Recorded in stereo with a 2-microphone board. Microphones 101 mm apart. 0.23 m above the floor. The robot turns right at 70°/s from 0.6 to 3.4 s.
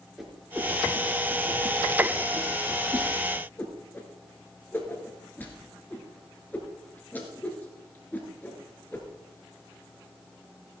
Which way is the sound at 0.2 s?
Centre (ahead or behind).